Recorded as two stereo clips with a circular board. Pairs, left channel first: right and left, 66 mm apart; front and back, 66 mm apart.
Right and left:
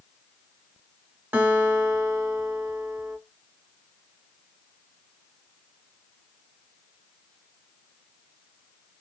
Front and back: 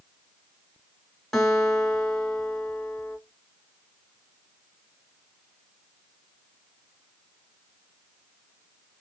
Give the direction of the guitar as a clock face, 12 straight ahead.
10 o'clock.